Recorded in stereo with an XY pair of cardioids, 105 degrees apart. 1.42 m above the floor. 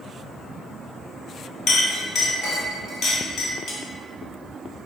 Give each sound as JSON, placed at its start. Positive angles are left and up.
{"t": 1.7, "sound": "a clink", "azimuth_deg": 60, "distance_m": 0.8}